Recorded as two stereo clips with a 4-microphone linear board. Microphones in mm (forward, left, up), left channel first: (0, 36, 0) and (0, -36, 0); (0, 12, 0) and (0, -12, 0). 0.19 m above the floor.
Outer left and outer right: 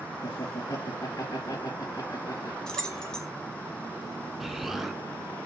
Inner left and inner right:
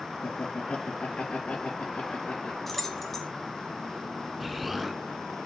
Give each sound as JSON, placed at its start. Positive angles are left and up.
{"t": 0.2, "sound": "laughter", "side_deg": 60, "distance_m": 2.5}
{"t": 2.7, "sound": "keys jangling", "side_deg": 10, "distance_m": 1.1}
{"t": 4.4, "sound": "an explosion", "side_deg": -5, "distance_m": 0.8}